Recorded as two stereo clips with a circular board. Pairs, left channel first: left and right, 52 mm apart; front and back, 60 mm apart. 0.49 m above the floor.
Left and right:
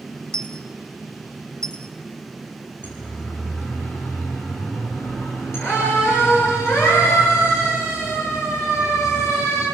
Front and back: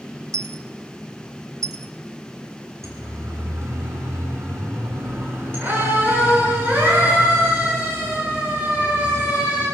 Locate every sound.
0.3 s a dropped coin: 160° left, 0.7 m
2.8 s a siren: 145° left, 5.5 m; by 9.7 s 115° left, 11.5 m